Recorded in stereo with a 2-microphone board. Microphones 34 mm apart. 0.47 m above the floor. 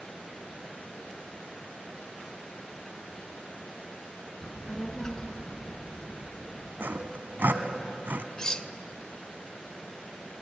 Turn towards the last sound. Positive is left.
turn(degrees=25)  # may be behind; listen again after turning